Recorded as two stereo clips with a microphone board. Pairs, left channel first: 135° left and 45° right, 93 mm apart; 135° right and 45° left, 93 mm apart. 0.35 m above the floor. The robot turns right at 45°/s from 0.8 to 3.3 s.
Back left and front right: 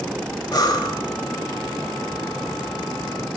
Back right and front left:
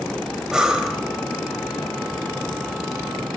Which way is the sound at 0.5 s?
125° left.